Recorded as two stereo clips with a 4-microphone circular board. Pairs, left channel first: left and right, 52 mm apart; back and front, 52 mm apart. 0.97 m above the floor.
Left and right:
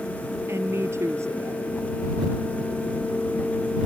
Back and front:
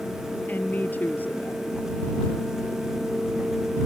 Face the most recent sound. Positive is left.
turn(degrees=-125)